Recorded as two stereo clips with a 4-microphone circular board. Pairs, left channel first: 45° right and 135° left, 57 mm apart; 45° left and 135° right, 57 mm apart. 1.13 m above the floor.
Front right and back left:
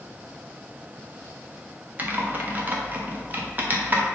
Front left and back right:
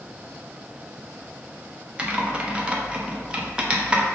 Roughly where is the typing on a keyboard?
Behind.